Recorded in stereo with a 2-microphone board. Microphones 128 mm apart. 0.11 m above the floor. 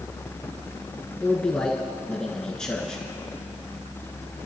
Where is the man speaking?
5° left (ahead or behind), 1.5 m.